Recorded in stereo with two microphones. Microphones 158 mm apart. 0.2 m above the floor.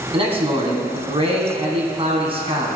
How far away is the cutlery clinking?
No cutlery clinking in this recording.